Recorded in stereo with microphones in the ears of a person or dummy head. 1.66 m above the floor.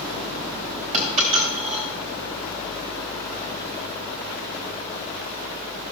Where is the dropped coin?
30° right (ahead or behind), 2.5 m.